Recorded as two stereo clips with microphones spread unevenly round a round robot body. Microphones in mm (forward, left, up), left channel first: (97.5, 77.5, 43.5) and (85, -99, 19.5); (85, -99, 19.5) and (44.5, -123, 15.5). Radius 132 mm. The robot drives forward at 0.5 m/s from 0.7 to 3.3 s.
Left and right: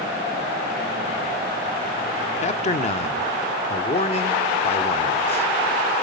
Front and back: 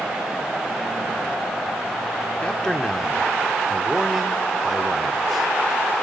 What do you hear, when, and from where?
2.4 s a man speaking: 80° left, 0.8 m; by 5.5 s 135° left, 0.9 m